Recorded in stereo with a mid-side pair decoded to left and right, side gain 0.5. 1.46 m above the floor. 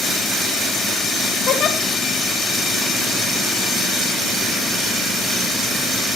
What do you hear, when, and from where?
1.5 s a giggle: 60° left, 2 m